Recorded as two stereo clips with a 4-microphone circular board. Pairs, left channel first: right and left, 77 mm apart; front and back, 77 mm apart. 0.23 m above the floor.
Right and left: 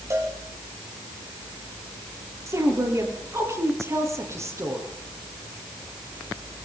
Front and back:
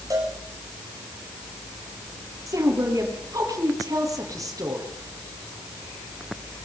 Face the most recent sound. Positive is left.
turn(degrees=140)